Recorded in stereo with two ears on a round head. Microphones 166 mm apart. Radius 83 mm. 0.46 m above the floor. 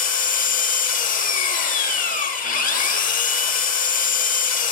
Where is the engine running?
45° left (ahead or behind), 1.0 m.